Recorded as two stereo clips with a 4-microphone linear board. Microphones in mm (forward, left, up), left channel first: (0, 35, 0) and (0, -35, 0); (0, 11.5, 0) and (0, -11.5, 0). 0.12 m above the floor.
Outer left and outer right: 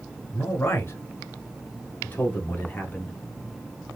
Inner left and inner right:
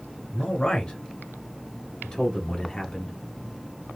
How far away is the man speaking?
About 2 m.